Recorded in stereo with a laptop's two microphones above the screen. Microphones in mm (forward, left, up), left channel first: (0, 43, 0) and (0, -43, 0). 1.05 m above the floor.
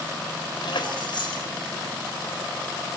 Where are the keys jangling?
70° left (ahead or behind), 3.5 m.